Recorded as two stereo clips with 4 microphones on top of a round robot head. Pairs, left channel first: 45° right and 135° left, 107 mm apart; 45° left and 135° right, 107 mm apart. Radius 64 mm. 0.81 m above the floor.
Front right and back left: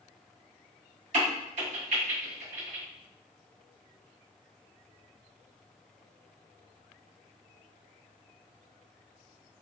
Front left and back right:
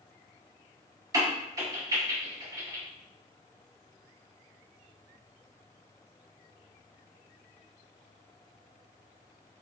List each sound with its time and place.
1.1 s a crack: 165° left, 1.5 m